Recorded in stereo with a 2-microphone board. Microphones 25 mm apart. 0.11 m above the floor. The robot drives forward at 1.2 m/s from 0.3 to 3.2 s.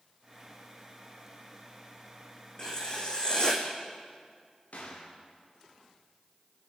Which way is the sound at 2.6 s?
30° left (ahead or behind).